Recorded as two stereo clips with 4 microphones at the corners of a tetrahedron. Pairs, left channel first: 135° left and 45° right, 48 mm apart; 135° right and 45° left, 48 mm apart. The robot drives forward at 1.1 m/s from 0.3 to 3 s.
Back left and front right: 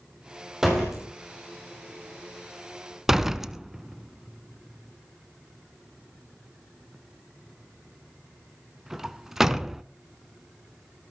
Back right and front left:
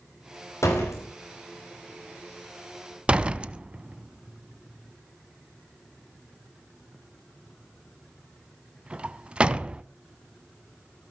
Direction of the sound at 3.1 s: 20° left.